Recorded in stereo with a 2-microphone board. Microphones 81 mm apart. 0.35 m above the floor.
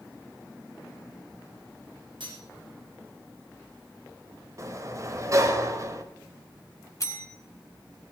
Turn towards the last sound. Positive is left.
turn(degrees=40)  # may be behind; listen again after turning